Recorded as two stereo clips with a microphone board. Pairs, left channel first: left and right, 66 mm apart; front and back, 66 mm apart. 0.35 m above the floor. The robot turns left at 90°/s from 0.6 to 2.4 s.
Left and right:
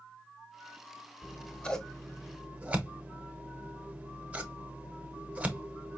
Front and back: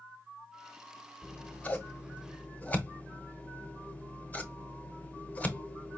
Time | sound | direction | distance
1.2 | scissors | 65° left | 0.9 m